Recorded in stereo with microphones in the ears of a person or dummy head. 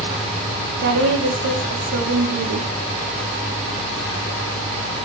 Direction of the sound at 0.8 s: 60° right (ahead or behind).